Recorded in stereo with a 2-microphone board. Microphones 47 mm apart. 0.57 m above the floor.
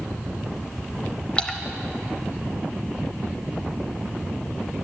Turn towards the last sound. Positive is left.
turn(degrees=20)  # may be behind; listen again after turning